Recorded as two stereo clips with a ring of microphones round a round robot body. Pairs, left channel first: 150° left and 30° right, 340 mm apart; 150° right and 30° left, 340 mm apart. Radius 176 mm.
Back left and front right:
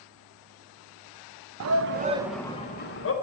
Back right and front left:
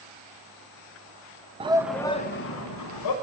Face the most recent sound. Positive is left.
turn(degrees=-165)